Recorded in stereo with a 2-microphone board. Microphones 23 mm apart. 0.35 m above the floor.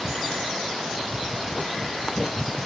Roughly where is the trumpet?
I don't hear a trumpet.